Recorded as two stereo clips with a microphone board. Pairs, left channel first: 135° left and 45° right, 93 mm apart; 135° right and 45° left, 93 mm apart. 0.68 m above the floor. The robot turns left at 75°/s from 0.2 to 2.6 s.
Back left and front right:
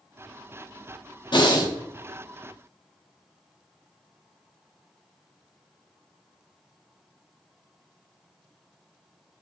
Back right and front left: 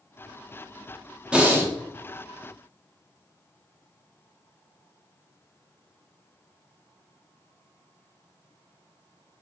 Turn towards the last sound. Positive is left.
turn(degrees=30)